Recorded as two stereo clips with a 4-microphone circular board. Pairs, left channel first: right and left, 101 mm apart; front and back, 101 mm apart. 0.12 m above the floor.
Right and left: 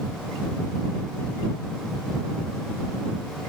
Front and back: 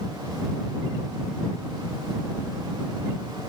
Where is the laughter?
I don't hear laughter.